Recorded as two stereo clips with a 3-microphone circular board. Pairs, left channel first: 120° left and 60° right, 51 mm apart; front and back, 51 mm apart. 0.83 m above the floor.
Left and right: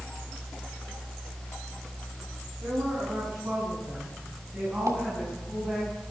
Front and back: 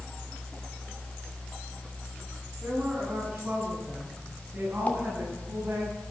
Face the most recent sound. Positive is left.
turn(degrees=-60)